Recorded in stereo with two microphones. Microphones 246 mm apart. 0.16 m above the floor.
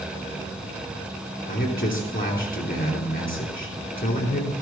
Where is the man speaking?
40° left (ahead or behind), 3 m.